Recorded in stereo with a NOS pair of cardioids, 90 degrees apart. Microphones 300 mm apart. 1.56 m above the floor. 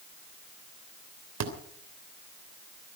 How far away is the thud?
About 3 m.